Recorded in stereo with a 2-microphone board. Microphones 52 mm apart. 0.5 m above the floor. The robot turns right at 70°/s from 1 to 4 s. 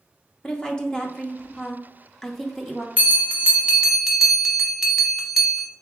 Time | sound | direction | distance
0.4 | a woman speaking | 15° left (ahead or behind) | 0.7 m
3.0 | a bell | 30° right (ahead or behind) | 0.9 m